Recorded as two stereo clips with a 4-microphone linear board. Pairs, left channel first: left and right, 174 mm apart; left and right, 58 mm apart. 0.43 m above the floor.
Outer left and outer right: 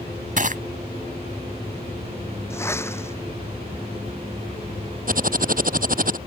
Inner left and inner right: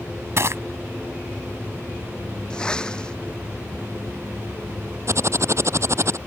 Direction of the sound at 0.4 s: 50° right (ahead or behind).